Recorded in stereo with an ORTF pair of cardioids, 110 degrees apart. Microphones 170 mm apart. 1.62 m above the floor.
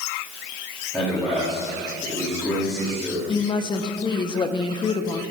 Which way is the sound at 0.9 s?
Straight ahead.